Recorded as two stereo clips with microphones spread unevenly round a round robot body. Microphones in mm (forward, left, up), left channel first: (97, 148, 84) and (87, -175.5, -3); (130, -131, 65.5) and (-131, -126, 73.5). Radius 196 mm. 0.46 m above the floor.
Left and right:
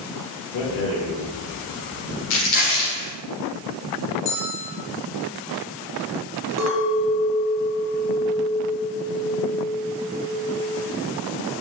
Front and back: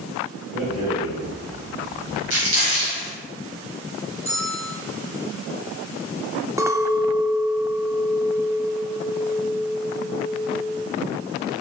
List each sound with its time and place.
0.5 s a rattle: 95° left, 1.8 m
2.3 s crumpling: 125° left, 1.6 m
4.2 s a bell: 105° left, 1.2 m
6.6 s a clink: 100° right, 0.5 m